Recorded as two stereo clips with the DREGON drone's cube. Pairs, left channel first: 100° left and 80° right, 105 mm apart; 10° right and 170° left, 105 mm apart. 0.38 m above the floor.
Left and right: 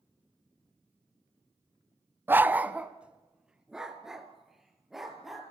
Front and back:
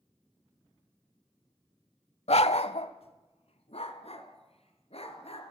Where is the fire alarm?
I don't hear a fire alarm.